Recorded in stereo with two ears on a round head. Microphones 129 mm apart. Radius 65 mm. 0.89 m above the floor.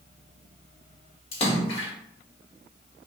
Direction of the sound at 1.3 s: 40° left (ahead or behind).